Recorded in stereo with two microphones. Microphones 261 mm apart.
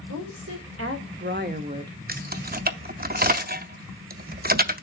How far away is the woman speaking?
About 2.5 m.